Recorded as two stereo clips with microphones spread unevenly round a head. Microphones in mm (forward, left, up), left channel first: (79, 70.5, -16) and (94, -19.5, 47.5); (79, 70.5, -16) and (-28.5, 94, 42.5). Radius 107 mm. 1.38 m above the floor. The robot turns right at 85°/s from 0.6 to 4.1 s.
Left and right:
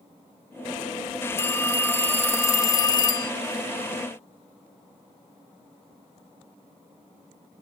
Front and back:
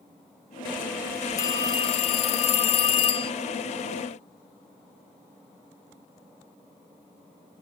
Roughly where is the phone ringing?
Behind right.